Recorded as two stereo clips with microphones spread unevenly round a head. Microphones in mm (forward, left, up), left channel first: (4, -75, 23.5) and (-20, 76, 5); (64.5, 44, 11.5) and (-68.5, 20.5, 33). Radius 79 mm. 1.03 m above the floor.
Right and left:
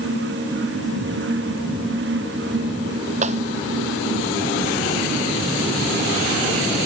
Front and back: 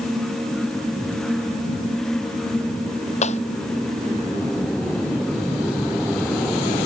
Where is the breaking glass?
50° left.